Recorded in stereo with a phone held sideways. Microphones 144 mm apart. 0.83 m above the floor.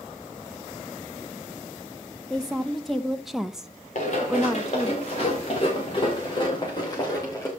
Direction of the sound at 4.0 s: 55° left (ahead or behind).